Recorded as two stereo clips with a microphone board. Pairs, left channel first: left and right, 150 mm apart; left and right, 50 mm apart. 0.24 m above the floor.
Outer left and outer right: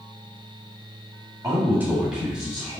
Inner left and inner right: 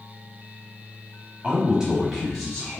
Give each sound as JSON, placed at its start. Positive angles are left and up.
{"t": 1.4, "sound": "a man speaking", "side_deg": -25, "distance_m": 1.2}